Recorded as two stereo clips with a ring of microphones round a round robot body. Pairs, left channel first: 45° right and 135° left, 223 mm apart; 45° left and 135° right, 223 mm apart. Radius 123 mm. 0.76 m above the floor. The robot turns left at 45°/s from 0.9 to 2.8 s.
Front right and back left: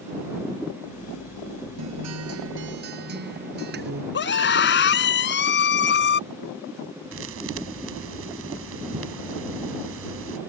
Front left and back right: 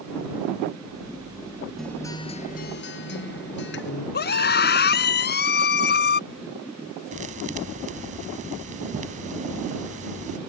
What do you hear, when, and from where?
1.8 s a guitar: 135° left; by 4.0 s 90° left
4.1 s a scream: straight ahead
7.1 s a thud: 165° left